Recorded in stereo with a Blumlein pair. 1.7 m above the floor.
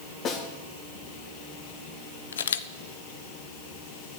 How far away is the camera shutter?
About 0.6 m.